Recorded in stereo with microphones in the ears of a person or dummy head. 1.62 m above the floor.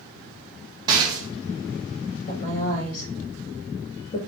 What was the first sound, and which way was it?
A rattle, 20° right (ahead or behind).